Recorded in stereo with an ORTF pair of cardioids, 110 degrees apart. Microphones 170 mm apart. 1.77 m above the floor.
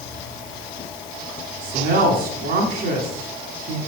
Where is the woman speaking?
65° right, 4 m.